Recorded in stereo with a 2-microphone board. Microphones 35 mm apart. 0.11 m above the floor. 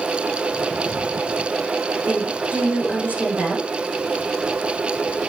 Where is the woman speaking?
45° right (ahead or behind), 7 m.